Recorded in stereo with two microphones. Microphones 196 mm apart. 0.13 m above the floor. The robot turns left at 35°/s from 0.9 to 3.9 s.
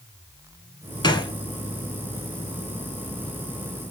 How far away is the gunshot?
About 0.6 m.